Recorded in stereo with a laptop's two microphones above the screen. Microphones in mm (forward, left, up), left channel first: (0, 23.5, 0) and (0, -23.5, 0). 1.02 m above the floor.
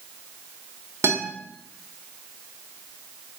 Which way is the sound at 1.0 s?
50° right (ahead or behind).